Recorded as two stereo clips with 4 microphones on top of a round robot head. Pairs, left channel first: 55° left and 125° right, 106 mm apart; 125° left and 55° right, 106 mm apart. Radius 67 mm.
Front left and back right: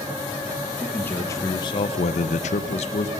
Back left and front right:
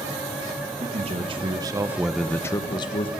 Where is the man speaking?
25° right, 1.5 m; by 3.1 s 85° left, 1.3 m.